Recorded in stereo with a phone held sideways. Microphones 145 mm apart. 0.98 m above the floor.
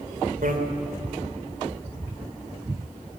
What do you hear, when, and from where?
0.4 s a bicycle bell: 75° right (ahead or behind), 2.5 m